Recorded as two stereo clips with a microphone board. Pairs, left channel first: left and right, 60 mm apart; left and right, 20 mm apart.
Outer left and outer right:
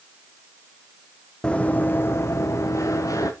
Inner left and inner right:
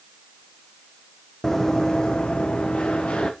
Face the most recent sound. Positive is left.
turn(degrees=65)  # may be behind; listen again after turning